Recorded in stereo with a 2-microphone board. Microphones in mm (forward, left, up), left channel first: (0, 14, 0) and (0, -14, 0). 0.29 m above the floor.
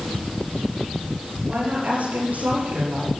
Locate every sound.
1.5 s a woman speaking: 80° right, 8 m